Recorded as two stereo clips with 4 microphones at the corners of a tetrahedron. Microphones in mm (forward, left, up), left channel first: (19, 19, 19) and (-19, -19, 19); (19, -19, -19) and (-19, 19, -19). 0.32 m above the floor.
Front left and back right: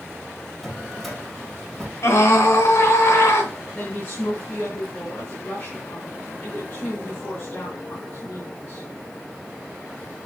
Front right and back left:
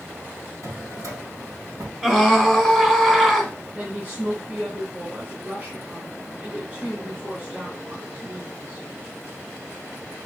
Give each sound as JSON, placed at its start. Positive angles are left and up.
{"t": 0.6, "sound": "a drawer", "azimuth_deg": 130, "distance_m": 2.5}
{"t": 2.0, "sound": "a scream", "azimuth_deg": 50, "distance_m": 2.5}
{"t": 3.8, "sound": "a woman speaking", "azimuth_deg": 80, "distance_m": 2.5}